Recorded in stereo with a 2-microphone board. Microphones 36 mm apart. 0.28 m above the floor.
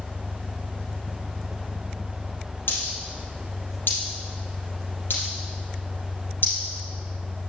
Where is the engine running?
45° left (ahead or behind), 2 m.